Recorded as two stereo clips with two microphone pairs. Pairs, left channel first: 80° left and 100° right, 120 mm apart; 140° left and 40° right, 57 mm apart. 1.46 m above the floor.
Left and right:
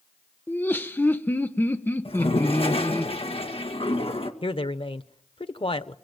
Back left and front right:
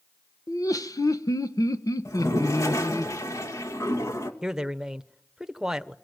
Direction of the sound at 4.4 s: 40° left.